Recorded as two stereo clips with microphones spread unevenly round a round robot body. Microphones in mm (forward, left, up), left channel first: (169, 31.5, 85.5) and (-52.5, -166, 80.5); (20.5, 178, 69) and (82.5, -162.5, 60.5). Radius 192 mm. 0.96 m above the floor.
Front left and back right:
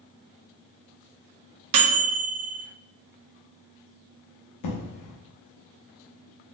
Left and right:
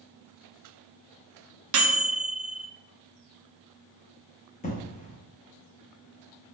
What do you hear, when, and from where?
1.7 s a microwave: 125° right, 0.6 m
4.6 s an explosion: 35° left, 0.7 m